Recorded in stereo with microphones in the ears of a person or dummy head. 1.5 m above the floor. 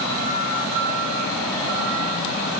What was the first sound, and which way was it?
Only background noise.